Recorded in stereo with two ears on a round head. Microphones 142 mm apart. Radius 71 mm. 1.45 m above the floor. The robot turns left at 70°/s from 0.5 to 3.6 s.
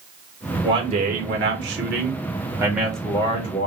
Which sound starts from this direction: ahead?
A man speaking, at 0.6 s.